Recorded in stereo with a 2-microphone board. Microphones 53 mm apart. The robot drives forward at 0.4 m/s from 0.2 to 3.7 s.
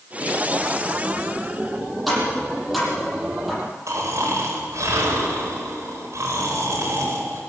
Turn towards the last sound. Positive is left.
turn(degrees=-65)  # may be behind; listen again after turning